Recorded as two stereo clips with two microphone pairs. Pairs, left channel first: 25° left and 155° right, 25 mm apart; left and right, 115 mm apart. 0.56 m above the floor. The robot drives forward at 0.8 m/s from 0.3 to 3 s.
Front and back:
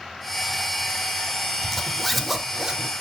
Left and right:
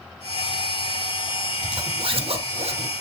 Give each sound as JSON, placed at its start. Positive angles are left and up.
{"t": 1.6, "sound": "a zipper", "azimuth_deg": -45, "distance_m": 1.3}